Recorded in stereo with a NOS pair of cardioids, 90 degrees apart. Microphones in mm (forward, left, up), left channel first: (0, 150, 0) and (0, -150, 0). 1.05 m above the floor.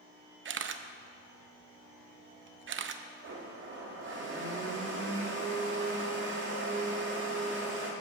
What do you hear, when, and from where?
0.5 s a camera shutter: 45° right, 0.5 m
3.2 s a blender: 40° right, 1.9 m